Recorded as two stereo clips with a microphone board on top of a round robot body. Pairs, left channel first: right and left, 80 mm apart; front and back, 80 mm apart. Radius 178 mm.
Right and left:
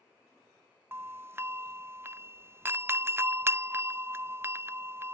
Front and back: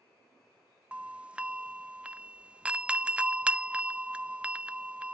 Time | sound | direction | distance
0.9 | a doorbell | 115° left | ?